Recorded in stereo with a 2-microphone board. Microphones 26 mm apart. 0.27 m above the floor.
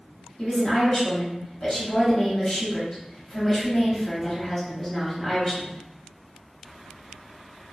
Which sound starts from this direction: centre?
A woman speaking, at 0.4 s.